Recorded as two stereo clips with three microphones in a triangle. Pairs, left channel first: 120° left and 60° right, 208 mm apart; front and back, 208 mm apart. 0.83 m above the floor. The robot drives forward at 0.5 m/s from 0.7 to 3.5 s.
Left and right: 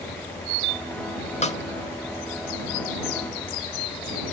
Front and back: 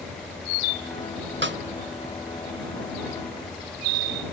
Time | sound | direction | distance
1.4 | a snare drum | 170° left | 1.0 m